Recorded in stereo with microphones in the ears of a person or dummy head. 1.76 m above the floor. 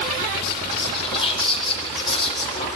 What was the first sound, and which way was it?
Whispering, 30° left (ahead or behind).